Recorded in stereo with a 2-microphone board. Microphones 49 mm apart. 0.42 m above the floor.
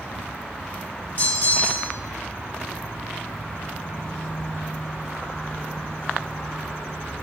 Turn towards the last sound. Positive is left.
turn(degrees=35)  # may be behind; listen again after turning